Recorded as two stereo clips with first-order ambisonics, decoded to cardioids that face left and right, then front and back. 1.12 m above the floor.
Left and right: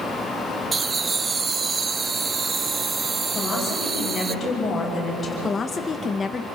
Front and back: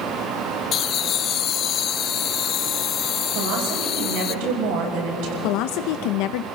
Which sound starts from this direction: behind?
A woman speaking, at 3.4 s.